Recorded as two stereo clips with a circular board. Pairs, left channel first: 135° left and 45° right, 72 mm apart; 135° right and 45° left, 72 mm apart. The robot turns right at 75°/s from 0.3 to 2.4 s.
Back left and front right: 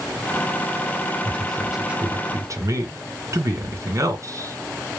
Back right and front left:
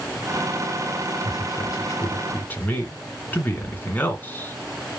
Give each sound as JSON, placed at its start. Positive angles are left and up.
{"t": 1.2, "sound": "a man speaking", "azimuth_deg": -160, "distance_m": 2.5}